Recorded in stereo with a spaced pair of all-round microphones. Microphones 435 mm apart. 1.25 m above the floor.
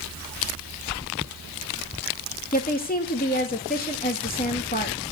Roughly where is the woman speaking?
Left.